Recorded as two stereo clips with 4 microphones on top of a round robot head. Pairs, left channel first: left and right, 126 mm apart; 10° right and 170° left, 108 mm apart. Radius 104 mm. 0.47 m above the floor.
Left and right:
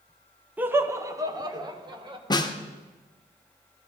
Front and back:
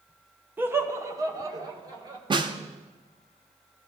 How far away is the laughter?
About 1.0 m.